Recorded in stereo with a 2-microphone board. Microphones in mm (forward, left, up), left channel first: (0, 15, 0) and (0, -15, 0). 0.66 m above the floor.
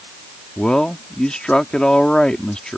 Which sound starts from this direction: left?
A man speaking, at 0.6 s.